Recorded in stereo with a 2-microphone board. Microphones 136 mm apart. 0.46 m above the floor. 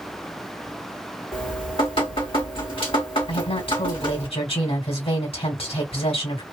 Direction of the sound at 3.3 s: 45° left (ahead or behind).